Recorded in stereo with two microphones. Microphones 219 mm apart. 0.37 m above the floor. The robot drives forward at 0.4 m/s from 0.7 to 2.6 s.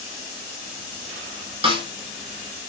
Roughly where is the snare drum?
Right.